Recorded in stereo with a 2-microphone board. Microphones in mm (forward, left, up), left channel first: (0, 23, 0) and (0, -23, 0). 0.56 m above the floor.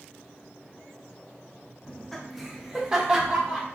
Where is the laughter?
15° left (ahead or behind), 0.6 m; by 3.6 s 25° right (ahead or behind), 1.1 m.